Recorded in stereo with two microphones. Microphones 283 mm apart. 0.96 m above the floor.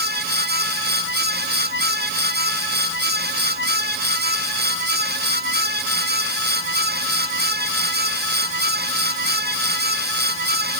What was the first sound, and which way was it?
Only background noise.